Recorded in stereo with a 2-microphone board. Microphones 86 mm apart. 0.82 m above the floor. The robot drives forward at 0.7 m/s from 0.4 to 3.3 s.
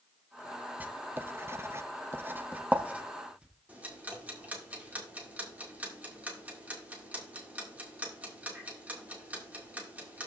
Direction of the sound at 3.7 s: 20° right (ahead or behind).